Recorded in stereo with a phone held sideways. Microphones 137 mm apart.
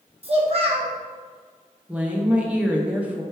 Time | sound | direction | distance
0.2 | a child speaking | 45° right (ahead or behind) | 0.9 m
1.9 | a woman speaking | 10° right (ahead or behind) | 0.7 m